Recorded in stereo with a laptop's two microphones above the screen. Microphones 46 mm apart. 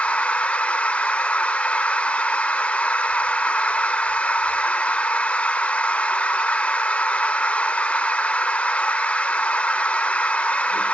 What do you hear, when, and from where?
0.0 s a machine running: 30° left (ahead or behind), 0.8 m